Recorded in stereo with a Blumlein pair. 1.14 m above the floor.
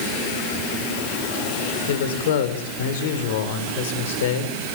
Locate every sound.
1.9 s a man speaking: 55° left, 3 m